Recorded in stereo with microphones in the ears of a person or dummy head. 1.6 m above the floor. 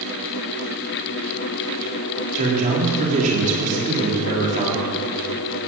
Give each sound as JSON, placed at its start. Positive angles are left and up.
{"t": 2.4, "sound": "a man speaking", "side_deg": -40, "distance_m": 3.5}